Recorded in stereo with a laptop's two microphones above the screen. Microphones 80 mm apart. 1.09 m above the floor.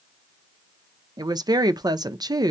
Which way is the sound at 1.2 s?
55° right (ahead or behind).